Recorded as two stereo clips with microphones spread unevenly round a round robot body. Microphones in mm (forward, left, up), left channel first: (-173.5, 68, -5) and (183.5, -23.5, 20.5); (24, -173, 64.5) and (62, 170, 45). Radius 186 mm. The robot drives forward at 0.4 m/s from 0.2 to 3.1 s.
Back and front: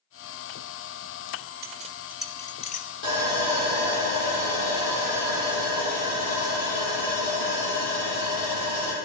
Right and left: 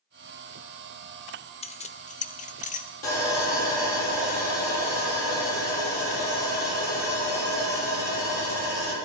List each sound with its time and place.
1.6 s keys jangling: 40° right, 0.6 m; by 2.9 s 155° right, 0.7 m
3.0 s sawing: 145° right, 4 m